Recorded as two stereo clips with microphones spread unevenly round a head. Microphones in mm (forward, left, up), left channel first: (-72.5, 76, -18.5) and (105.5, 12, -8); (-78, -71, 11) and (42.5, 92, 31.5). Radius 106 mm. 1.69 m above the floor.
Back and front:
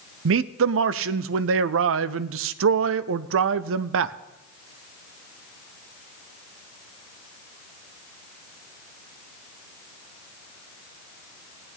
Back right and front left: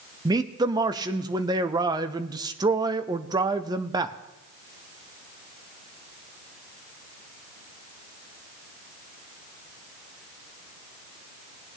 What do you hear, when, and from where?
0.2 s a man speaking: 20° right, 0.5 m